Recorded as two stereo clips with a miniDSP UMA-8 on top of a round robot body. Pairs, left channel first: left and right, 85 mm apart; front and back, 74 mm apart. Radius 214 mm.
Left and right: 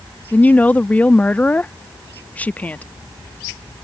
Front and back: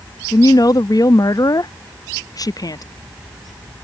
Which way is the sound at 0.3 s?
20° left.